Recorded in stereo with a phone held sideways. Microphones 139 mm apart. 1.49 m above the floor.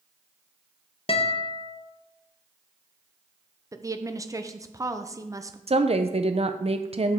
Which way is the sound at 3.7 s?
25° right (ahead or behind).